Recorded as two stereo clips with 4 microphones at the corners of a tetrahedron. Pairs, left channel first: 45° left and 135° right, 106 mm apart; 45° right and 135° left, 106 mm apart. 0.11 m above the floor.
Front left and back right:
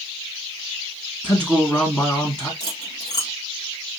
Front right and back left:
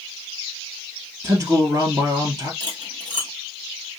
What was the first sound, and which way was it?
A man speaking, 110° left.